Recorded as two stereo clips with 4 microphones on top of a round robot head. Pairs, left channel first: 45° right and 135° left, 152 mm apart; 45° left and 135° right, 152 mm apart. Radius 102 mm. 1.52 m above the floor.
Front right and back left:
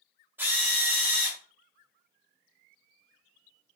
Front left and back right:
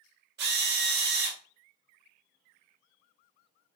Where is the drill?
145° right, 1.1 m.